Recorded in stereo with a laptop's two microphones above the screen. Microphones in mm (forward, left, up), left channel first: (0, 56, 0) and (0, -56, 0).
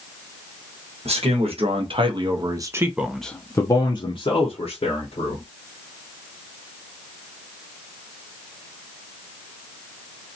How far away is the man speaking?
About 1.2 m.